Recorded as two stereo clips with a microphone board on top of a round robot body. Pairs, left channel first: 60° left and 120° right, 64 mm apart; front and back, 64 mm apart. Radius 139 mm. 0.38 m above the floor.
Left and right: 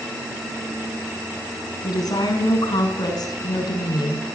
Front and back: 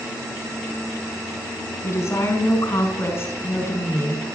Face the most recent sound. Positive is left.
turn(degrees=55)